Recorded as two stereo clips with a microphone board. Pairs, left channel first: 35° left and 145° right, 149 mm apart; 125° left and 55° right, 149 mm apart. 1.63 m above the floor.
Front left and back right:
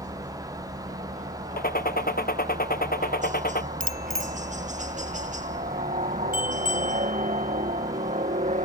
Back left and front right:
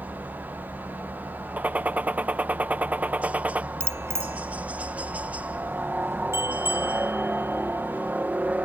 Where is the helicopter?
135° right.